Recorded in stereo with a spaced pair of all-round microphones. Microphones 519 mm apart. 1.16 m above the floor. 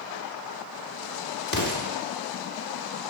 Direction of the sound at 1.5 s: 40° left (ahead or behind).